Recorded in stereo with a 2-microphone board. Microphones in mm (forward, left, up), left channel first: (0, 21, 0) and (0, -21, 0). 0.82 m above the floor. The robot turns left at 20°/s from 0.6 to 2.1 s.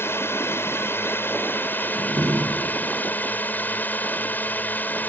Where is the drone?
80° left; by 5.1 s 50° left.